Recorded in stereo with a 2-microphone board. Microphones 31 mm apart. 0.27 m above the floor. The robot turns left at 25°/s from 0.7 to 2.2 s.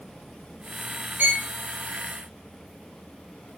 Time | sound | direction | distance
1.2 | a violin | 55° right (ahead or behind) | 0.6 m